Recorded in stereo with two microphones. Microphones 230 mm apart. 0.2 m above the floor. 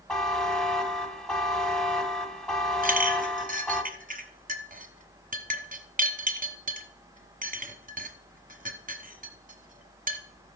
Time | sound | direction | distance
0.1 | a buzzer | 5° left (ahead or behind) | 1.1 m
2.8 | a clink | 35° right (ahead or behind) | 1.3 m